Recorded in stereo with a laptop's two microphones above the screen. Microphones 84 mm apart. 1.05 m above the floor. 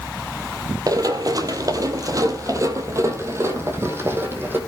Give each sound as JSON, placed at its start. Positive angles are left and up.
{"t": 0.9, "sound": "running footsteps", "side_deg": -45, "distance_m": 1.5}